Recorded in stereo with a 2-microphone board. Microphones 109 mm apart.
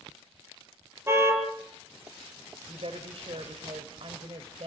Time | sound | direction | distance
1.1 | a car horn | 25° right (ahead or behind) | 5.5 m
2.7 | a woman speaking | 65° right (ahead or behind) | 2 m